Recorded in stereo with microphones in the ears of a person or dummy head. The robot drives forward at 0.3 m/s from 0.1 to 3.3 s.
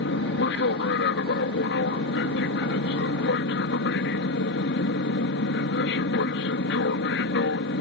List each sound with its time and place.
0.0 s an aircraft: 60° left (ahead or behind)